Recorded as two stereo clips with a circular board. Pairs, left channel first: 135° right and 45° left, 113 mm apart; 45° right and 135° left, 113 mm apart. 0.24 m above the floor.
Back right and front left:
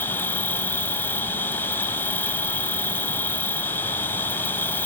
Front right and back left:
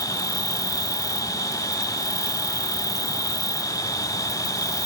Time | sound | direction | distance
0.0 | an insect | 75° right | ?